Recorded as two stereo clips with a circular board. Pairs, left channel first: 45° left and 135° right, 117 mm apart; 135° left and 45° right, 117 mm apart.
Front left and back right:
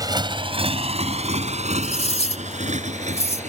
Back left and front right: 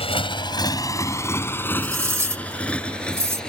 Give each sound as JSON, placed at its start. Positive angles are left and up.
{"t": 0.0, "sound": "a motorcycle", "azimuth_deg": 170}
{"t": 1.8, "sound": "cutlery clinking", "azimuth_deg": 20}